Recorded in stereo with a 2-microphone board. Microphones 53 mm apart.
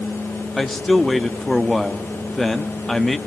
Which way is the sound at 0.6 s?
5° left (ahead or behind).